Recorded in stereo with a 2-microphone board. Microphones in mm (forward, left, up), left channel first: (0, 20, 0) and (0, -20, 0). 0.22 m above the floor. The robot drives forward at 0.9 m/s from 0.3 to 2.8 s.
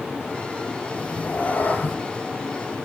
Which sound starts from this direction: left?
A cat meowing, at 0.9 s.